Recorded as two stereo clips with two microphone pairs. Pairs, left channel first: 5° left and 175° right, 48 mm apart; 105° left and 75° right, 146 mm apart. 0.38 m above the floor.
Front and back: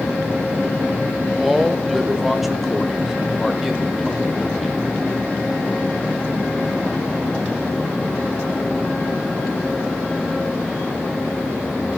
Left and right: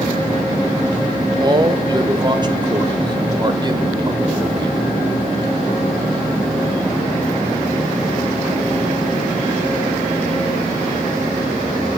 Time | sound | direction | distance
1.4 | a man speaking | 95° right | 1.2 m